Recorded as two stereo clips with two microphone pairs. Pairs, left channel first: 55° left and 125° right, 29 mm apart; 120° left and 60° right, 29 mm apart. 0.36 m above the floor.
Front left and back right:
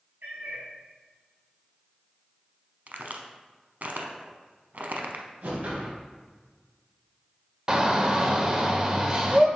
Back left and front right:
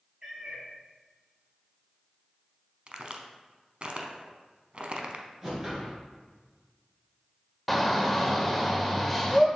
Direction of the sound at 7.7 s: 155° right.